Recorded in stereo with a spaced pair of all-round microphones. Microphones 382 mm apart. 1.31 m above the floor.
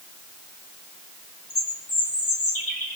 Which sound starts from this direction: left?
A bird, at 1.5 s.